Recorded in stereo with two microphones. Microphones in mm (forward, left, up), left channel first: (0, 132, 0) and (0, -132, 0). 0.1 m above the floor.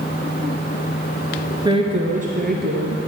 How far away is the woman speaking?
About 1.1 m.